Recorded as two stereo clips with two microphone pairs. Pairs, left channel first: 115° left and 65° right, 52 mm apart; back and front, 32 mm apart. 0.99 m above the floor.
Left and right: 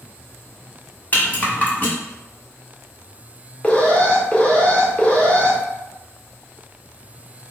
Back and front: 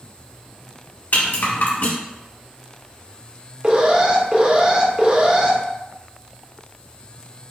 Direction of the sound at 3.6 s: 50° left.